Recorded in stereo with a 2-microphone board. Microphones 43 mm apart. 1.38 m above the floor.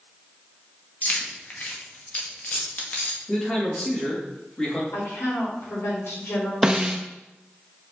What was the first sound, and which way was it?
Keys jangling, 35° left (ahead or behind).